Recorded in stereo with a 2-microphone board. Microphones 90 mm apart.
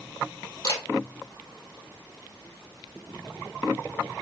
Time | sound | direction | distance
0.6 | a camera shutter | 45° left (ahead or behind) | 2.5 m